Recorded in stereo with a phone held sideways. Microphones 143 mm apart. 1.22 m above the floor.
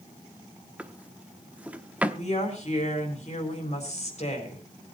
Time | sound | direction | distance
0.8 | a drawer | 10° right (ahead or behind) | 0.9 m
2.1 | a woman speaking | 50° left (ahead or behind) | 4 m